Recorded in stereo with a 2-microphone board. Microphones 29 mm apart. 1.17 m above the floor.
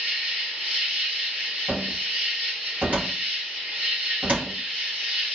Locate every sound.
0.0 s an insect: 80° right, 1.5 m
1.7 s a cupboard door: 55° right (ahead or behind), 1.4 m